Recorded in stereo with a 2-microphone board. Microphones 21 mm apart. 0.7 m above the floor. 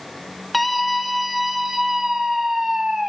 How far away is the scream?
About 2.0 m.